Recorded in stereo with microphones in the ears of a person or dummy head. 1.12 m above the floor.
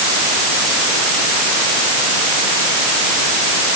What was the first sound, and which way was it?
Only background noise.